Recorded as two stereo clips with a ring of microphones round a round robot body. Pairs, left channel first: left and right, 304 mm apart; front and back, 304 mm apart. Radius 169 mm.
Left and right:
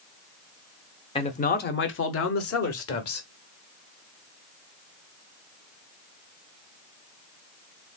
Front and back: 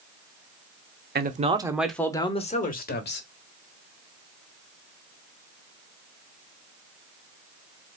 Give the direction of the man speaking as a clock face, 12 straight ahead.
7 o'clock.